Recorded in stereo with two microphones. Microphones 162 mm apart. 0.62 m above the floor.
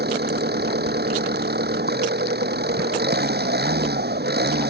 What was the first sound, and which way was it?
An engine running, 90° right.